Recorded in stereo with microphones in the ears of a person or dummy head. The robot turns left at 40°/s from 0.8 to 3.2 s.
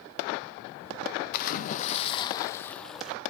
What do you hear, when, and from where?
1.3 s a splash: 65° left, 0.8 m; by 3.2 s 10° right, 0.8 m